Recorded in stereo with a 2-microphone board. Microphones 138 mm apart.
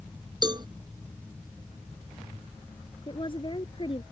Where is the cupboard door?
I don't hear a cupboard door.